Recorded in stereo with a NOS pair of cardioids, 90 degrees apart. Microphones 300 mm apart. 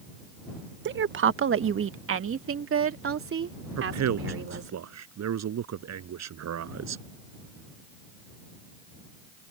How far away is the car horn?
I don't hear a car horn.